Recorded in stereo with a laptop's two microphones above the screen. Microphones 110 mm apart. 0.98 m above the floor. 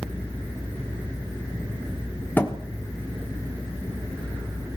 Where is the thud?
15° left (ahead or behind), 1.0 m.